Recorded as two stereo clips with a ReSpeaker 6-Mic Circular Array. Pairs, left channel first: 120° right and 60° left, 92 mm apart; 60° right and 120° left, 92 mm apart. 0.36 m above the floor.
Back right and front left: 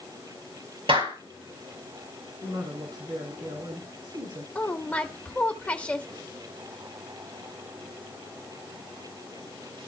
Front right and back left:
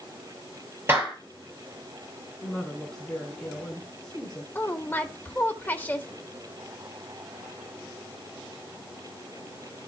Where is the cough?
No cough in this recording.